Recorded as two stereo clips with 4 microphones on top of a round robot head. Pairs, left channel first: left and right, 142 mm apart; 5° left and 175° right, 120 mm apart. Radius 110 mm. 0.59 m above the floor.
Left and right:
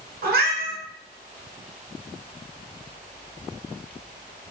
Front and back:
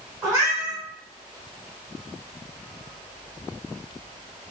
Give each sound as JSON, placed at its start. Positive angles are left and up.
{"t": 0.2, "sound": "a cat meowing", "azimuth_deg": -100, "distance_m": 1.2}